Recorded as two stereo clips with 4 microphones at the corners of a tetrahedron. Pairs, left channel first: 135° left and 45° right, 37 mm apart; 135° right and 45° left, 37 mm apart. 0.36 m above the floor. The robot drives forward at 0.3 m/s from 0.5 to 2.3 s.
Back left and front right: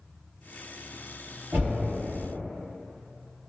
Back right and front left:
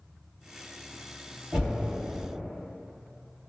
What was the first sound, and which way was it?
Knocking, 15° right.